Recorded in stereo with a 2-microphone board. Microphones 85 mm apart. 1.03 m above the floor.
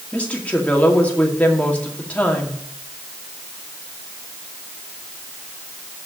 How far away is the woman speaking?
About 2 m.